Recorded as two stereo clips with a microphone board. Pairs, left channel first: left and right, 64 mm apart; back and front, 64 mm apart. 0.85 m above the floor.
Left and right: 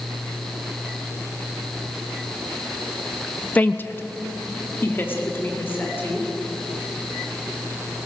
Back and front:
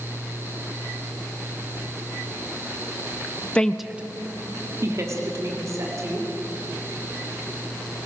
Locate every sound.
3.5 s a woman speaking: 130° left, 0.9 m; by 6.3 s 35° left, 4 m